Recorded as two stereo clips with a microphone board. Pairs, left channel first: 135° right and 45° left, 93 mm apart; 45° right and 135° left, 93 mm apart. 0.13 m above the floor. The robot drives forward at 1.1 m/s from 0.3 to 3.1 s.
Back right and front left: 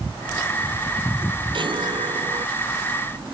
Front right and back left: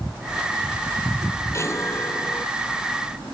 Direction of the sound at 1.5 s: 15° left.